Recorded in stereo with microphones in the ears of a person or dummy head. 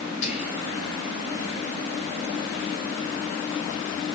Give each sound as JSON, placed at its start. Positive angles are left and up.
{"t": 0.2, "sound": "whispering", "side_deg": 40, "distance_m": 2.0}